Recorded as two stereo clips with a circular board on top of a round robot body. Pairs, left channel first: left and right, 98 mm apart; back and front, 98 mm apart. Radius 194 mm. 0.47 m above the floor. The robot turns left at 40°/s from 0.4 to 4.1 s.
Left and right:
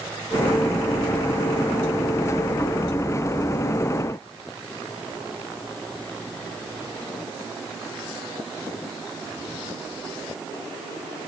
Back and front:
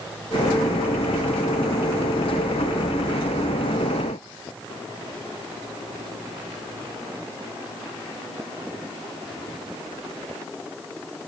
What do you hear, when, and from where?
Only background noise.